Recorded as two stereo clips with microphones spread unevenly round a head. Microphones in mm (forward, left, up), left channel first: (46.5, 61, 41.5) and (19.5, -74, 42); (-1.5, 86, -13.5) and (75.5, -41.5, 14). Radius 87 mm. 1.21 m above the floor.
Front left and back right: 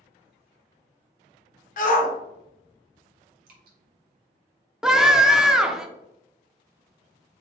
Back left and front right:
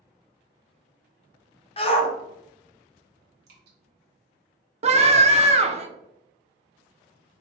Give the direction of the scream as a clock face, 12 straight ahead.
1 o'clock.